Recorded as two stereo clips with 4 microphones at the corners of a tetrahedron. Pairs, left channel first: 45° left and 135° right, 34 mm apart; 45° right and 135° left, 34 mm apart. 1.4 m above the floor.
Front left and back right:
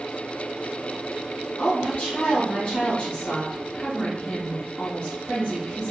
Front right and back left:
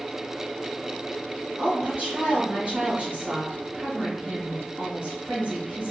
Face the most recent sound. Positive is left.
turn(degrees=100)